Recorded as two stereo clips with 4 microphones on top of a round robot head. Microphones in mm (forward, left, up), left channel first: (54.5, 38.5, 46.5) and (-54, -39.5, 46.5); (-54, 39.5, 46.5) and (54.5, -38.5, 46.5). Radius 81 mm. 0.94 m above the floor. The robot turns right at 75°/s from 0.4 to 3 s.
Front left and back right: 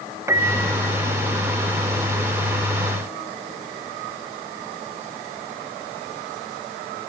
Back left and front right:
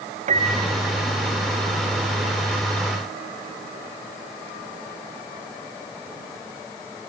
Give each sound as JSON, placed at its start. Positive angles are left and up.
{"t": 0.3, "sound": "a piano", "azimuth_deg": -75, "distance_m": 2.5}